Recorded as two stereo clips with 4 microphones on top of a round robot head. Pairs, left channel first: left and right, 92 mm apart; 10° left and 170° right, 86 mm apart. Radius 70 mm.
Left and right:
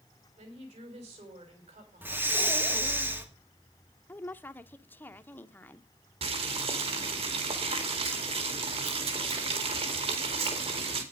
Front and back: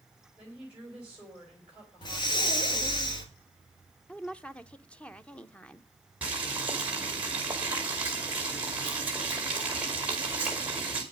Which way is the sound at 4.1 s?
65° left.